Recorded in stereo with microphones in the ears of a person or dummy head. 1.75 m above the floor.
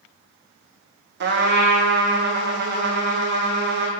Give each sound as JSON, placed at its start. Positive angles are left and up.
{"t": 1.2, "sound": "a trumpet", "side_deg": -50, "distance_m": 1.2}